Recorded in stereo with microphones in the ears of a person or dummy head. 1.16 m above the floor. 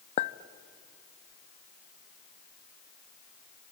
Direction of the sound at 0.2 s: 40° left (ahead or behind).